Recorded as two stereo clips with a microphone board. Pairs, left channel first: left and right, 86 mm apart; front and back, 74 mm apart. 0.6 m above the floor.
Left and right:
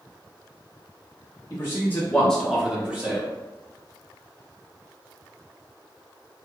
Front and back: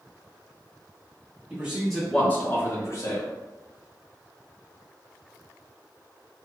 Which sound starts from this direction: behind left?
A man speaking, at 1.5 s.